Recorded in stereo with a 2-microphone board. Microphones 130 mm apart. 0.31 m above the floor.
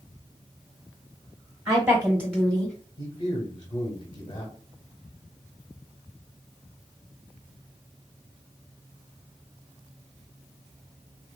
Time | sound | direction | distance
1.7 | a woman speaking | 30° right (ahead or behind) | 1.1 m
3.0 | a man speaking | 25° left (ahead or behind) | 1.4 m